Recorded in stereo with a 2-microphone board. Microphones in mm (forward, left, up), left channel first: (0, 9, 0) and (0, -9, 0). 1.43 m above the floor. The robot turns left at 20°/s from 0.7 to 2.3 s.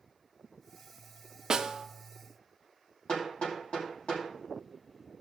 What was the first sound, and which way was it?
A snare drum, 40° right (ahead or behind).